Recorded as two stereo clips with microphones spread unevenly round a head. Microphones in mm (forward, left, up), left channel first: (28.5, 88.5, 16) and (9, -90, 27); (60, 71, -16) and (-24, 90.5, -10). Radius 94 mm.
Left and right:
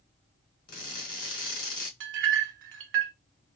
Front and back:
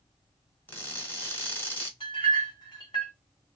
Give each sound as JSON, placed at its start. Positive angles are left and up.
{"t": 0.7, "sound": "crushing", "azimuth_deg": 50, "distance_m": 1.8}
{"t": 2.0, "sound": "a clink", "azimuth_deg": -75, "distance_m": 0.8}